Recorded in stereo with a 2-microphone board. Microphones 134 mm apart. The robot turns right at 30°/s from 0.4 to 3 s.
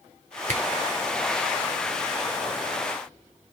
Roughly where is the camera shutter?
Right.